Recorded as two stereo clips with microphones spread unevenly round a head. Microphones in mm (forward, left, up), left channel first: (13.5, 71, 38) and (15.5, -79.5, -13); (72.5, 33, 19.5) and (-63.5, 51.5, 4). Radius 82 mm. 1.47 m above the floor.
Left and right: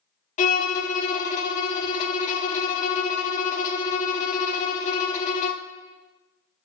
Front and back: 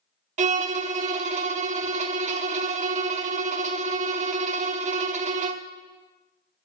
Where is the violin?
145° left, 0.6 m.